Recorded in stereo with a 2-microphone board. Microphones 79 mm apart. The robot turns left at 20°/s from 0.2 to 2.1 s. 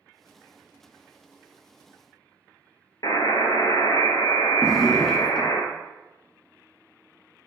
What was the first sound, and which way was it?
A buzzer, 60° left (ahead or behind).